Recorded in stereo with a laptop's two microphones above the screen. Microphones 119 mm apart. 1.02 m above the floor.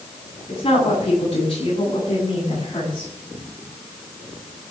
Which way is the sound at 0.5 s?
55° left (ahead or behind).